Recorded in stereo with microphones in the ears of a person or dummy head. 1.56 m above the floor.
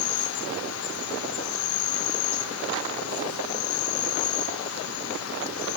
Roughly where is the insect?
Left.